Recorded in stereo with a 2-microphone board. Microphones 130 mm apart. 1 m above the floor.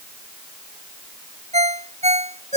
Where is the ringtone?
60° right (ahead or behind).